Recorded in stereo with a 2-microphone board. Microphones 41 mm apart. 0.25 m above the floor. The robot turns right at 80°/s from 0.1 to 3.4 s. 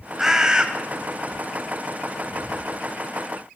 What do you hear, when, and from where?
0.2 s a bird: 10° right (ahead or behind), 1.2 m; by 0.7 s 25° right (ahead or behind), 1.2 m